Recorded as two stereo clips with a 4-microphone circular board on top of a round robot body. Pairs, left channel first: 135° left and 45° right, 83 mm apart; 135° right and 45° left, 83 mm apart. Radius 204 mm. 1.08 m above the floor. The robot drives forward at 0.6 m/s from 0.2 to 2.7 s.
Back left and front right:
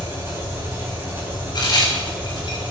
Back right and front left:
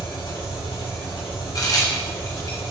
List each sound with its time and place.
0.0 s an engine running: 105° right, 6 m; by 2.7 s 120° right, 6.5 m
1.6 s a crack: 175° left, 3 m